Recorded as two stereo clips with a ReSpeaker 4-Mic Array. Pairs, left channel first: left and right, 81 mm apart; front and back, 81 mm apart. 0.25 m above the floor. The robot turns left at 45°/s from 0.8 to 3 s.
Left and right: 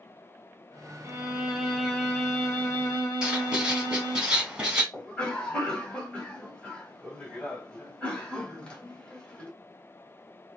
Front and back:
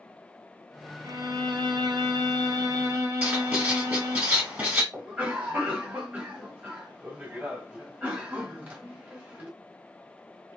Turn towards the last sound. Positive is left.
turn(degrees=140)